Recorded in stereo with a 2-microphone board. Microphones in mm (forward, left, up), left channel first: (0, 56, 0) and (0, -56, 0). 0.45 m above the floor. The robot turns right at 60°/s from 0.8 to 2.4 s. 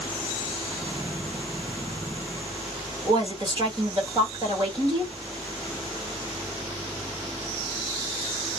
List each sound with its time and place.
3.0 s a woman speaking: 40° right (ahead or behind), 1.8 m